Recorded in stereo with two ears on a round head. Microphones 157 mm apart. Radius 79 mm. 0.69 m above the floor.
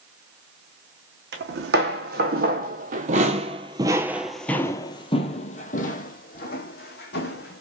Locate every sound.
1.3 s footsteps: 65° right (ahead or behind), 1.7 m; by 7.6 s 65° left (ahead or behind), 1.8 m